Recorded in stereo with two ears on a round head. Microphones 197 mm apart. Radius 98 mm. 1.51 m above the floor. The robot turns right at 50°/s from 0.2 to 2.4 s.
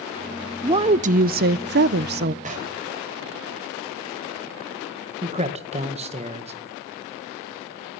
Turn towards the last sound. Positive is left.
turn(degrees=-30)  # may be behind; listen again after turning